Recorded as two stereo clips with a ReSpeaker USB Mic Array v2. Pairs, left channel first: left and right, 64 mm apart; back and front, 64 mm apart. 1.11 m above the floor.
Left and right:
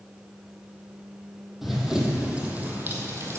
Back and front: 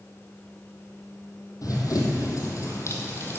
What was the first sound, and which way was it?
Running footsteps, straight behind.